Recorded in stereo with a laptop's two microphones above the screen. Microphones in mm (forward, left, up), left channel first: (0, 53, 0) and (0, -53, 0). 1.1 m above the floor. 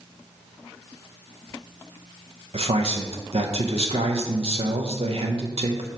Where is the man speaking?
70° right (ahead or behind), 0.7 m.